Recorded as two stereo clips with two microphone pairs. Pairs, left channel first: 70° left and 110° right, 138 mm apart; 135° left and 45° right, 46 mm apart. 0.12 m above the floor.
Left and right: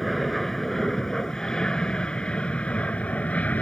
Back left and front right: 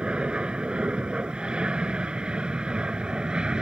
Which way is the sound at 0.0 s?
20° right.